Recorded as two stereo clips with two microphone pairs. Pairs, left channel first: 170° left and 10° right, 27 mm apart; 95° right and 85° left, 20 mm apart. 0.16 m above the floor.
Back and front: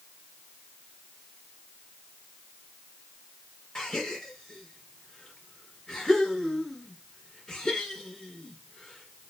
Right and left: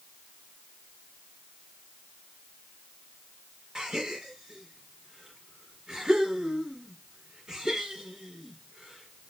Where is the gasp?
115° left, 1.7 m.